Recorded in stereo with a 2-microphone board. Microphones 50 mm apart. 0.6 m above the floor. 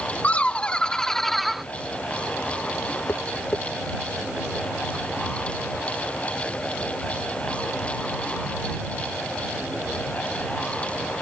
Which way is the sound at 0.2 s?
30° left (ahead or behind).